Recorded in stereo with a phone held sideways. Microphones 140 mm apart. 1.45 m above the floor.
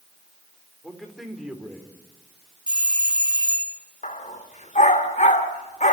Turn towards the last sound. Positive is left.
turn(degrees=60)  # may be behind; listen again after turning